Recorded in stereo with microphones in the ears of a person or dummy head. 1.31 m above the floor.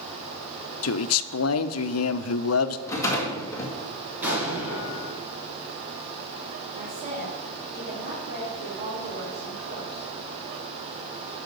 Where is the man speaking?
80° left, 0.6 m.